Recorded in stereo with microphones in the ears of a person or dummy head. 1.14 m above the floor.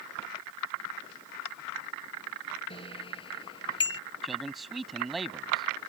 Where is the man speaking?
Centre (ahead or behind).